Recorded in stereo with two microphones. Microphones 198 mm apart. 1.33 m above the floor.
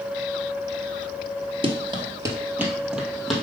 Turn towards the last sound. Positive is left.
turn(degrees=0)  # may be behind; listen again after turning